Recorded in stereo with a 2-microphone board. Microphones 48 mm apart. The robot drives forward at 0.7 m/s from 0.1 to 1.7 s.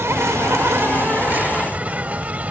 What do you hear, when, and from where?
0.0 s an insect: 75° right (ahead or behind); by 2.5 s 35° right (ahead or behind)